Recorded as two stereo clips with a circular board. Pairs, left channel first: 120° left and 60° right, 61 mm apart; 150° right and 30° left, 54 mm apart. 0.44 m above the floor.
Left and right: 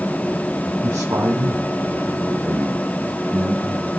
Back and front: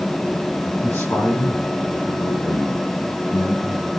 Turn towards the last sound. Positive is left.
turn(degrees=-140)